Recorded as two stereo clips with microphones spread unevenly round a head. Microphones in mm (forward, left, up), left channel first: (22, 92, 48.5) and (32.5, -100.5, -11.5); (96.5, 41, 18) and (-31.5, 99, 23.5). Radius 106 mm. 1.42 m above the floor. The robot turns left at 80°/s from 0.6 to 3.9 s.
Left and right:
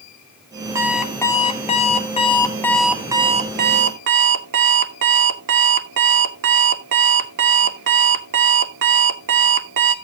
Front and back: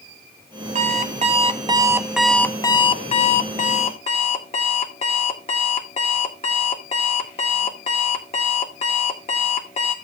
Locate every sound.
0.8 s an alarm clock: 175° right, 0.9 m; by 9.9 s 65° right, 0.9 m